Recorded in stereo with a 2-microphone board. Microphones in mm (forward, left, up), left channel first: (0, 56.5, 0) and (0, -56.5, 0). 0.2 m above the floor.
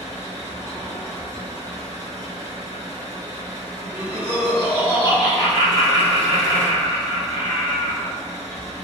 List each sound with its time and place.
0.0 s an engine running: 20° left (ahead or behind), 1.6 m
3.8 s laughter: 20° left (ahead or behind), 1.2 m